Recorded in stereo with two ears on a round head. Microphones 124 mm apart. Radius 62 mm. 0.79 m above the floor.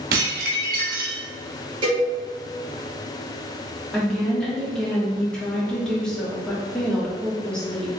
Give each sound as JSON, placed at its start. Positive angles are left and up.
{"t": 0.1, "sound": "dishes clattering", "side_deg": -70, "distance_m": 0.8}
{"t": 1.8, "sound": "a cowbell", "side_deg": -30, "distance_m": 1.5}
{"t": 3.9, "sound": "a woman speaking", "side_deg": 5, "distance_m": 1.1}